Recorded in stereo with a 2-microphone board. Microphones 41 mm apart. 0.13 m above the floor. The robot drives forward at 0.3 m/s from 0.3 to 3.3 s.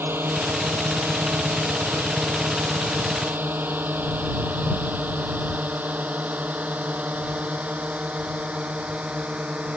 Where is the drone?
70° right (ahead or behind); by 9.8 s 30° right (ahead or behind).